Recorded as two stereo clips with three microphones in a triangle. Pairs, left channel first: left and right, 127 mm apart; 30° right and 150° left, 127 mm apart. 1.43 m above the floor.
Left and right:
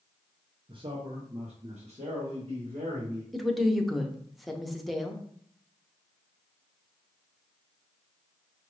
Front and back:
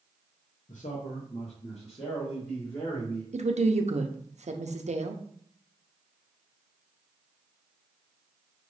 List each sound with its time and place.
0.7 s a man speaking: 40° right, 0.7 m; by 3.2 s 75° right, 2 m
3.3 s a woman speaking: straight behind, 0.7 m